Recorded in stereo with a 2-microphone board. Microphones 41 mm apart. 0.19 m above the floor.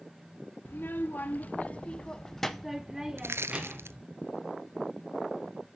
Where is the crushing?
80° right, 0.6 m.